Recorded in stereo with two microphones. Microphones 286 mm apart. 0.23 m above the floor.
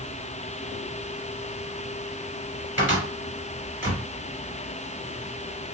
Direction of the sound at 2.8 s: 45° right (ahead or behind).